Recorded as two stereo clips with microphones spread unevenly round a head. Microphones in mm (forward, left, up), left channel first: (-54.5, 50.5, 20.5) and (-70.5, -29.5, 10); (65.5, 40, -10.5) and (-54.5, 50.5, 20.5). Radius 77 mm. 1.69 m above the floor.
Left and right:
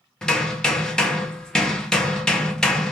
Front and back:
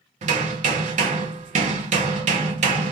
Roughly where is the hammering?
Behind.